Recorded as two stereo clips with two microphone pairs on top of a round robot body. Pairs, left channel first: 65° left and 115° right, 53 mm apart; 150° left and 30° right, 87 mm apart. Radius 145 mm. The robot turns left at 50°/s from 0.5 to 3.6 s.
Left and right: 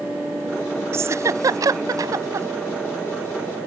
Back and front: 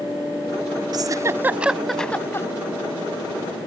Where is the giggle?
70° right; by 2.5 s 145° right.